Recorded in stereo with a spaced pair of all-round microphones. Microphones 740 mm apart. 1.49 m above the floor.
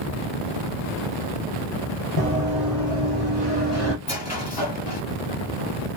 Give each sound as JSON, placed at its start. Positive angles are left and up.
{"t": 2.2, "sound": "running footsteps", "side_deg": 30, "distance_m": 2.0}
{"t": 4.0, "sound": "a squeak", "side_deg": 20, "distance_m": 2.0}